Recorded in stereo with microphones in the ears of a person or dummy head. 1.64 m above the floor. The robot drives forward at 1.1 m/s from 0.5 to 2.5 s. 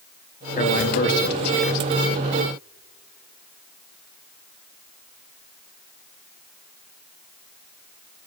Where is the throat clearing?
No throat clearing in this recording.